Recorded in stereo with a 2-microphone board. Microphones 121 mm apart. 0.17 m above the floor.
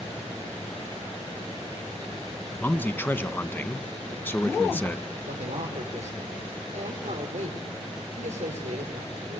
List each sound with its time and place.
2.6 s a man speaking: 15° left (ahead or behind), 1.2 m
5.3 s a man speaking: 75° right (ahead or behind), 5.5 m